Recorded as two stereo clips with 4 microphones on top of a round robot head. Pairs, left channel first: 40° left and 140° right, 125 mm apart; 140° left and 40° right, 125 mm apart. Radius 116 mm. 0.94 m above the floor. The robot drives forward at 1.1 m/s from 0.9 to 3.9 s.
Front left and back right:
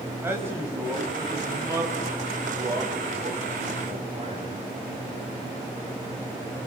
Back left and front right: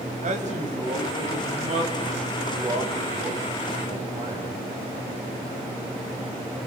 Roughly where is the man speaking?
Right.